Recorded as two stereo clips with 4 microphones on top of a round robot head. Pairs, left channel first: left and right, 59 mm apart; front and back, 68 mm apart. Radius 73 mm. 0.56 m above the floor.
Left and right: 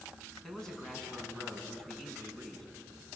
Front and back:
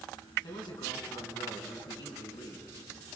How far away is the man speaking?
About 4.5 m.